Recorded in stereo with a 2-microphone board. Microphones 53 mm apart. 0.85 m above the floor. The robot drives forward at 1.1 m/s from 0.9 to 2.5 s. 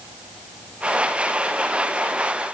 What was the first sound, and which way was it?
Only background noise.